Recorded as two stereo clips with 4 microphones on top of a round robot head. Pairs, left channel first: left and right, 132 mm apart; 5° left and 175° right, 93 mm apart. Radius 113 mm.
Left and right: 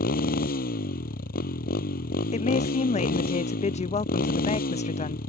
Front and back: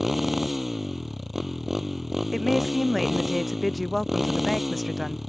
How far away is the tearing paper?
No tearing paper in this recording.